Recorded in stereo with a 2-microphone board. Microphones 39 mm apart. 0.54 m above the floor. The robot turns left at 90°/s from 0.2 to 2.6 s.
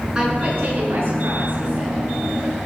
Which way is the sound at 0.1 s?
15° right.